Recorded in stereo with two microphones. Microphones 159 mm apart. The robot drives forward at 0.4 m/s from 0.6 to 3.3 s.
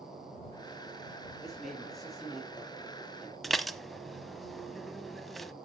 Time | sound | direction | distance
1.4 | a man speaking | centre (ahead or behind) | 5 m
3.4 | dishes clattering | centre (ahead or behind) | 0.7 m